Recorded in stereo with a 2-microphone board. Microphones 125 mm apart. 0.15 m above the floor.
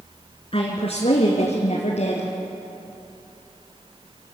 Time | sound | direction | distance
0.5 | a woman speaking | 50° left (ahead or behind) | 2 m